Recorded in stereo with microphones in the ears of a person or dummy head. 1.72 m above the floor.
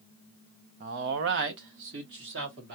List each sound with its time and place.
0.8 s a man speaking: 40° right (ahead or behind), 0.5 m; by 2.8 s 65° right (ahead or behind), 2.5 m